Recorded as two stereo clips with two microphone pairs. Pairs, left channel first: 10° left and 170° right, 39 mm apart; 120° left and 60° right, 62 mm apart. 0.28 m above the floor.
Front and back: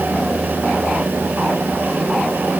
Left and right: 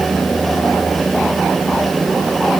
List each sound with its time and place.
Only background noise.